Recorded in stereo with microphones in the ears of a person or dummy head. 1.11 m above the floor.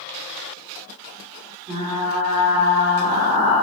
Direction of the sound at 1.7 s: 40° right (ahead or behind).